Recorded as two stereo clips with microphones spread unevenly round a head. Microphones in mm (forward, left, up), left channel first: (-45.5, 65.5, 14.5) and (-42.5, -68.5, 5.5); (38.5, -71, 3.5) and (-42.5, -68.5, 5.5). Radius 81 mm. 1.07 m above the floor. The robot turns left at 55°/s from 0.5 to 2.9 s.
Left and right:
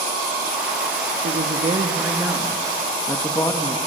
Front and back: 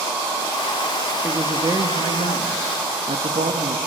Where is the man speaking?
110° right, 1.7 m; by 3.8 s 160° left, 1.7 m.